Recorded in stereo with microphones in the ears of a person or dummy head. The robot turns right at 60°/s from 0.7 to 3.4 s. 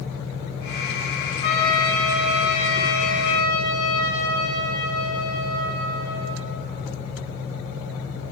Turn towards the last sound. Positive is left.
turn(degrees=155)